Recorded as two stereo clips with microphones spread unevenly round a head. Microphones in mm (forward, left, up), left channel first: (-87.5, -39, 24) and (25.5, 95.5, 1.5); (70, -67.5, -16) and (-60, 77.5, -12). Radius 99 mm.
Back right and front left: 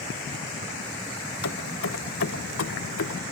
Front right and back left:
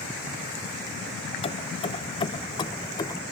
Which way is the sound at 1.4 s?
110° right.